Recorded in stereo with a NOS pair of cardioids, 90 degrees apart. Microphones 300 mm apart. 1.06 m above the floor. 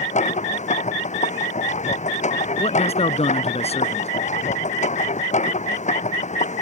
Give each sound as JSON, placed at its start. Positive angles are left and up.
{"t": 0.0, "sound": "a machine running", "azimuth_deg": 25}
{"t": 2.6, "sound": "a man speaking", "azimuth_deg": 20}